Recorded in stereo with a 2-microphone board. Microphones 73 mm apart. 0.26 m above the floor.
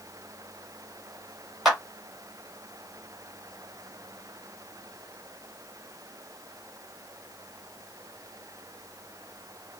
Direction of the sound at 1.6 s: Centre (ahead or behind).